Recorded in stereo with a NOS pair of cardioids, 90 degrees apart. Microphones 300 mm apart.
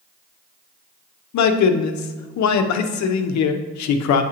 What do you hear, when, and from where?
1.3 s a man speaking: 70° left, 0.7 m